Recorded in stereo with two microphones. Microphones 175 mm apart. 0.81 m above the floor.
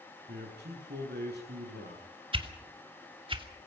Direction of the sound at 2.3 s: 30° right (ahead or behind).